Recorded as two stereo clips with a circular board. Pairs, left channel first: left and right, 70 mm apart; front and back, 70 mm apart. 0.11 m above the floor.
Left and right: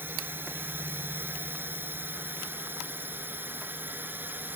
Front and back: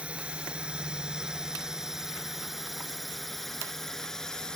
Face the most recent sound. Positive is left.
turn(degrees=-75)